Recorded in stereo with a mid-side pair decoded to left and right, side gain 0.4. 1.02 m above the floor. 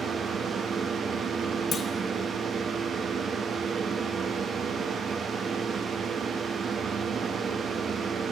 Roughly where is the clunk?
Ahead left.